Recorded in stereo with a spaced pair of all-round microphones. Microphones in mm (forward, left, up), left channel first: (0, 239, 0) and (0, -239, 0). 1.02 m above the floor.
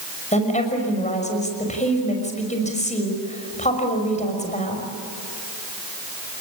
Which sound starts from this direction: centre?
A woman speaking, at 0.3 s.